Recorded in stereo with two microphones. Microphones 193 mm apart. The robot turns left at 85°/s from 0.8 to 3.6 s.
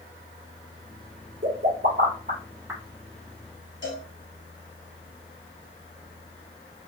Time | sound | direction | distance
1.4 | a pop | 55° right (ahead or behind) | 2.0 m
3.8 | a cowbell | 75° left (ahead or behind) | 1.9 m